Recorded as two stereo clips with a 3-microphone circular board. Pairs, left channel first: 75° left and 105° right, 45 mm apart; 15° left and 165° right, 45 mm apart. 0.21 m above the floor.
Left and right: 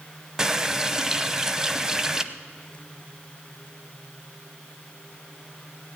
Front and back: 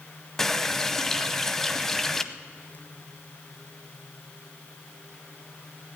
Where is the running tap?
55° right, 0.7 m.